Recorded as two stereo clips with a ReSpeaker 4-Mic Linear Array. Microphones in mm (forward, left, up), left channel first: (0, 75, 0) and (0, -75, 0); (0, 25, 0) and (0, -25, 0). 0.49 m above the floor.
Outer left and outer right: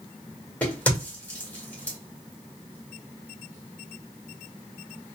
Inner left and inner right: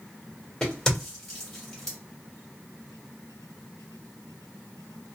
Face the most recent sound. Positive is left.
turn(degrees=10)  # may be behind; listen again after turning